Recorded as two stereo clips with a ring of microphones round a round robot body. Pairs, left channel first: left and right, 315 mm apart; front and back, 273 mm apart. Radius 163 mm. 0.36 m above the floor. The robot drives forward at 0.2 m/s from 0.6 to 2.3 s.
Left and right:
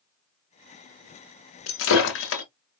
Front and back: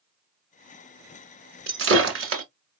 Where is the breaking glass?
135° left, 1.5 m; by 2.4 s 140° left, 1.6 m.